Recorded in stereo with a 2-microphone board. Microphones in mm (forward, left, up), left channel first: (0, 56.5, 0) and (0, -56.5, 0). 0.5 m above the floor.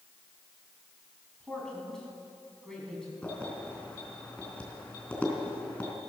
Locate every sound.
1.4 s a man speaking: 5° left (ahead or behind), 5 m
3.2 s keys jangling: 15° left (ahead or behind), 3.5 m